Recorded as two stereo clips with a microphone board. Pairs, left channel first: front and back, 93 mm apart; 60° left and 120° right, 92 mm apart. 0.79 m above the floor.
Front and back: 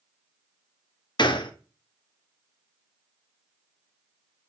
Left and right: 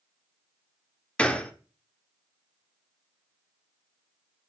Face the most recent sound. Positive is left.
turn(degrees=-15)